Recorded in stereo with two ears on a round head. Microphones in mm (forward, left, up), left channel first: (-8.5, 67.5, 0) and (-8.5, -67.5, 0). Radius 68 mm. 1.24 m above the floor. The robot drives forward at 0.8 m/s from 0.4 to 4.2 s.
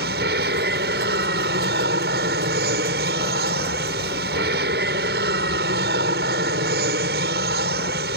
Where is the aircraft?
75° right (ahead or behind).